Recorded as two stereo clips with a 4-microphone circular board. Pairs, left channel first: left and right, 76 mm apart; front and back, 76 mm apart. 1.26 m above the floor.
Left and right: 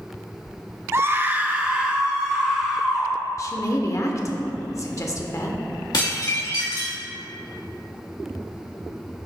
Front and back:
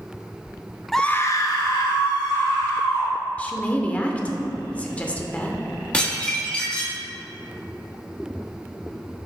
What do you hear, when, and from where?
0.9 s a scream: 90° right, 0.5 m; by 3.1 s 10° right, 2.5 m
3.4 s a woman speaking: 65° left, 0.7 m
5.9 s dishes clattering: 75° left, 1.4 m